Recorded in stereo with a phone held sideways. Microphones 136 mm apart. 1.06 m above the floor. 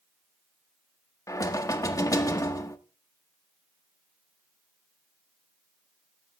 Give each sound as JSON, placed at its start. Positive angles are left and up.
{"t": 1.3, "sound": "knocking", "side_deg": 25, "distance_m": 0.6}